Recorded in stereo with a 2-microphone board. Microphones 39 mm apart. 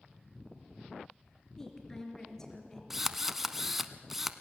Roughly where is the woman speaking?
Centre.